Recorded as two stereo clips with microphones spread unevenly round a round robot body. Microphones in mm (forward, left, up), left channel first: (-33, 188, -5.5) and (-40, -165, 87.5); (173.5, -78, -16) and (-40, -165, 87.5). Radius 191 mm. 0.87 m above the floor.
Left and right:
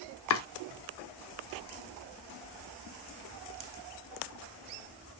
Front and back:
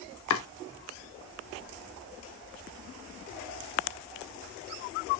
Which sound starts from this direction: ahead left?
Chopping, at 0.3 s.